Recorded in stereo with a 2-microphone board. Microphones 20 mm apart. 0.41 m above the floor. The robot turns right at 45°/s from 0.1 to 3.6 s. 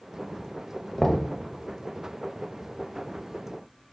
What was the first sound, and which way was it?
Knocking, 30° left (ahead or behind).